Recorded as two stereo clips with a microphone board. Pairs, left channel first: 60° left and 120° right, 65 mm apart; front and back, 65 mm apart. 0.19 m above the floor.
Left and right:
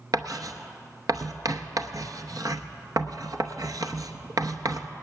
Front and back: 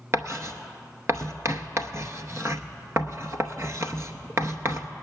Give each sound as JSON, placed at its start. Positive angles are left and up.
{"t": 0.1, "sound": "writing", "azimuth_deg": -135, "distance_m": 0.8}